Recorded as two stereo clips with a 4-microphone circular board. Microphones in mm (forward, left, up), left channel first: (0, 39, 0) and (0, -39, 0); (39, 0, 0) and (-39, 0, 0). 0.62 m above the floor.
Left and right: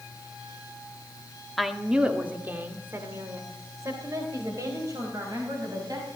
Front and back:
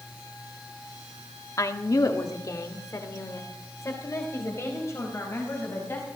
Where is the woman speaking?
Straight ahead, 1.3 m; by 6.1 s 55° right, 5 m.